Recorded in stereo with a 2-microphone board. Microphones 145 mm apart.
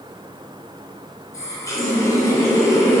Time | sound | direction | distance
1.3 | a running tap | 20° left (ahead or behind) | 3 m